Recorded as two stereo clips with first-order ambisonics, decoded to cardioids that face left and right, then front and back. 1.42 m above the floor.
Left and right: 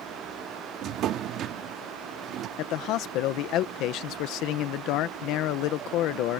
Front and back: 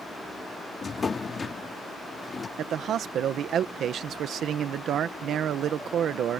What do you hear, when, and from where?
0.8 s a drawer: 65° right
2.6 s a man speaking: 125° left